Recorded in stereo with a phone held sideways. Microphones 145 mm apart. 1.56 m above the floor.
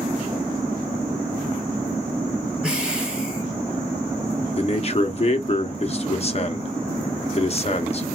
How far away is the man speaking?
About 0.8 m.